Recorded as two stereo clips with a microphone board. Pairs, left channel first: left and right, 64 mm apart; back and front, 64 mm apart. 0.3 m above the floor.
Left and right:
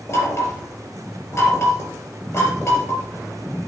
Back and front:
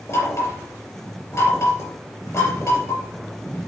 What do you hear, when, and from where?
0.1 s knocking: 140° left, 4 m